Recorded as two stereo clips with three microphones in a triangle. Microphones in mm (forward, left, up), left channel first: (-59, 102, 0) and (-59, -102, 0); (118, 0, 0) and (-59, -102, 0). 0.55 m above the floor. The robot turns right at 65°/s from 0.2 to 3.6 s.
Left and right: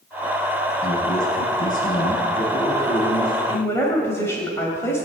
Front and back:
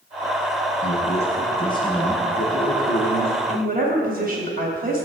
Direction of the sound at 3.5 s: 160° left.